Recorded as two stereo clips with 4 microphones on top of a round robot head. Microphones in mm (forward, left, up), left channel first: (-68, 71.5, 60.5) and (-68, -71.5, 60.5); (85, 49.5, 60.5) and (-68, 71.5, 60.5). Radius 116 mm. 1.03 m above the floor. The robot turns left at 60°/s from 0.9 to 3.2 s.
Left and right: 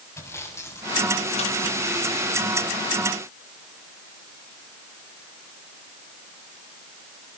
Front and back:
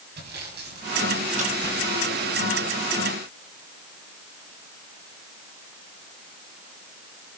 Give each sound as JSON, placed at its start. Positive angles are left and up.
{"t": 0.2, "sound": "sawing", "azimuth_deg": 160, "distance_m": 6.5}